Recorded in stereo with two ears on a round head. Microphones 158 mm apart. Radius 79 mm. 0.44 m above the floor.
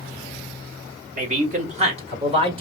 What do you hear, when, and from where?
1.2 s a man speaking: 45° right (ahead or behind), 1.7 m; by 2.6 s 30° right (ahead or behind), 1.9 m